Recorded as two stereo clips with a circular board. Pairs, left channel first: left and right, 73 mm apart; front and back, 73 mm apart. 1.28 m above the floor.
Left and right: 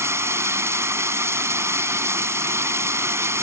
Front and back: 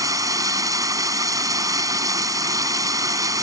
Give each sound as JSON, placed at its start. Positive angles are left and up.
{"t": 0.0, "sound": "running water", "azimuth_deg": -140}